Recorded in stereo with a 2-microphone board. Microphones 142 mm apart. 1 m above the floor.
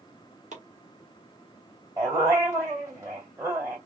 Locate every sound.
0.5 s chopping: 60° right (ahead or behind), 1.2 m
2.0 s a dog barking: 20° right (ahead or behind), 2 m